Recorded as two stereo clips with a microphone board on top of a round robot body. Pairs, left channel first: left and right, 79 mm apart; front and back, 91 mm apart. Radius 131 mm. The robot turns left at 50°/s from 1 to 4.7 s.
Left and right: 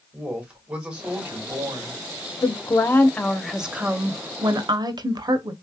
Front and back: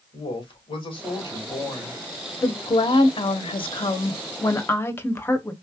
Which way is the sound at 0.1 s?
15° right.